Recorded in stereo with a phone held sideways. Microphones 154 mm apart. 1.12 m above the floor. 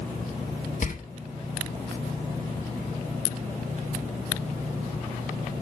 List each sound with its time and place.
0.8 s a door slam: 55° left (ahead or behind), 1.5 m